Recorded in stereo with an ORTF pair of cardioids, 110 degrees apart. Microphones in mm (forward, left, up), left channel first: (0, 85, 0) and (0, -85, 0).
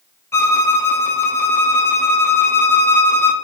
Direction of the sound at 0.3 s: 15° left.